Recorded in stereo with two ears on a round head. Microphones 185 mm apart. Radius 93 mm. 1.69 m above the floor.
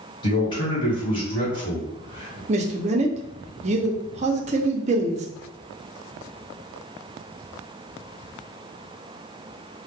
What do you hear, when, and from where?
0.2 s a man speaking: 25° left (ahead or behind), 1.4 m
2.5 s a man speaking: 35° right (ahead or behind), 0.5 m